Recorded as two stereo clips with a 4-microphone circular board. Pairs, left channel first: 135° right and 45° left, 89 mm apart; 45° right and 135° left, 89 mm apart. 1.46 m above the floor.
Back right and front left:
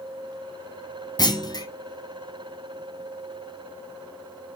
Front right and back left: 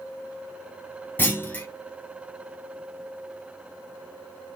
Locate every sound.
1.2 s a clunk: 110° right, 0.6 m